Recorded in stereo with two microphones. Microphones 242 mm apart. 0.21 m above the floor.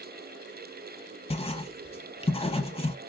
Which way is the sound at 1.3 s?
25° left (ahead or behind).